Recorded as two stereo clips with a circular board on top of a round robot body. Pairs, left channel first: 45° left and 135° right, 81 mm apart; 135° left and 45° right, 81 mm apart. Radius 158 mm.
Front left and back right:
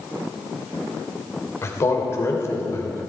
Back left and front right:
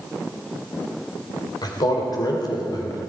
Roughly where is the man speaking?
Left.